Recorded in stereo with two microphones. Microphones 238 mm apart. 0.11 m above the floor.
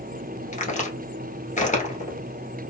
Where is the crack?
30° left (ahead or behind), 1.2 m.